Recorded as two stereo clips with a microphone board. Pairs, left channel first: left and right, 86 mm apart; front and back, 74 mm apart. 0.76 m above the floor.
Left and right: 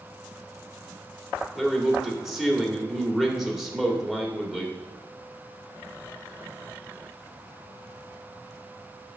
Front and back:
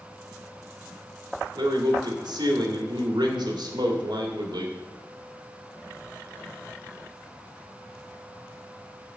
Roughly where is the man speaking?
Behind.